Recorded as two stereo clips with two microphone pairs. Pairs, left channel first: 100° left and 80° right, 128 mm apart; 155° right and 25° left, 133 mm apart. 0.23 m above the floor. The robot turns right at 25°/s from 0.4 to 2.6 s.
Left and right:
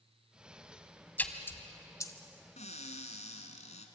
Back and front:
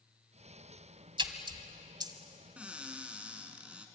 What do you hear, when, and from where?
1.2 s a splash: 35° left, 1.6 m; by 2.1 s 55° left, 1.6 m
2.6 s a cupboard door: 105° left, 2 m